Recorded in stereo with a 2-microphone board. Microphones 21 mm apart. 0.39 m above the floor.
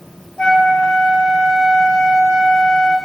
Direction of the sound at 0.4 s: 40° left (ahead or behind).